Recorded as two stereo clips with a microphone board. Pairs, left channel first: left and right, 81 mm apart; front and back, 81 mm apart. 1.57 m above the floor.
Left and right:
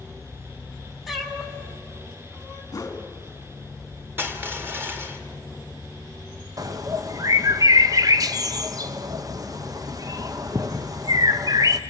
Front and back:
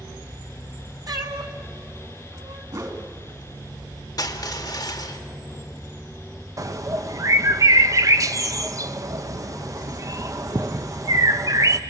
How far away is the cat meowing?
About 2 m.